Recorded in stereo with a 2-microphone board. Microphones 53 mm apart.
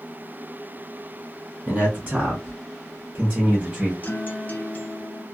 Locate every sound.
1.7 s a man speaking: 30° right (ahead or behind), 1.8 m; by 3.9 s 20° right (ahead or behind), 1.0 m
4.0 s a guitar: 30° left (ahead or behind), 0.6 m